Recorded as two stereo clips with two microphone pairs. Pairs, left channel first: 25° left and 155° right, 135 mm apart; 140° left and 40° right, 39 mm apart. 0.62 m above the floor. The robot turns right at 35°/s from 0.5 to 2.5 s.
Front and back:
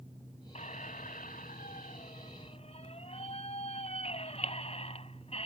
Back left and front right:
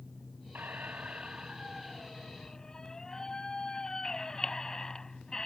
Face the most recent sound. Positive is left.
turn(degrees=65)